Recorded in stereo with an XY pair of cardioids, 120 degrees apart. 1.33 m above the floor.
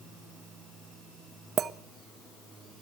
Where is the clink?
45° right, 0.9 m.